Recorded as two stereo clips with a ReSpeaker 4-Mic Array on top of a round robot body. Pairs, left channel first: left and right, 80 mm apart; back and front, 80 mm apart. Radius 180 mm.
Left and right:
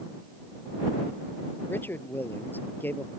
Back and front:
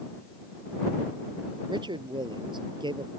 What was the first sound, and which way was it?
A man speaking, 25° left.